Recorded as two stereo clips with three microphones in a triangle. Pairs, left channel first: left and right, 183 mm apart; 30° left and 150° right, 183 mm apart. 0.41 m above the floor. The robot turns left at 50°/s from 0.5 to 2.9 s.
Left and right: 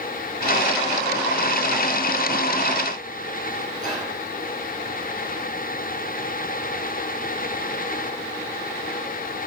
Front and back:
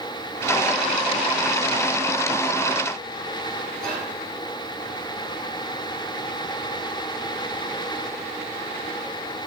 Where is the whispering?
115° left, 4.5 m.